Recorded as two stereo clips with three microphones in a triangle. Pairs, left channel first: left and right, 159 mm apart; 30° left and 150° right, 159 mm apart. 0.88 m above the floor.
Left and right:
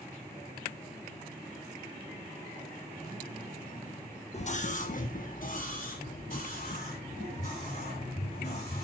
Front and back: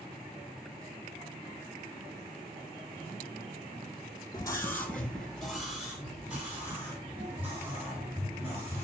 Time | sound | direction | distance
4.3 | a scream | 85° left | 0.9 m